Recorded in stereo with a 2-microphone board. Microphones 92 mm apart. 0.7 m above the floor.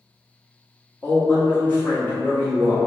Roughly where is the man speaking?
Left.